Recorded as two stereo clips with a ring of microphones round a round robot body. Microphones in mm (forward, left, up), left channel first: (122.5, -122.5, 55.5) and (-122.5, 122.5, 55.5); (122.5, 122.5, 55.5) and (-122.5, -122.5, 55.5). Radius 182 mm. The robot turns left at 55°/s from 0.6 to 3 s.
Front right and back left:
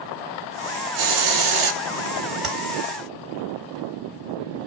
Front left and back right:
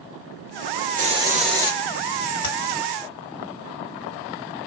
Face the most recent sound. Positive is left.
turn(degrees=15)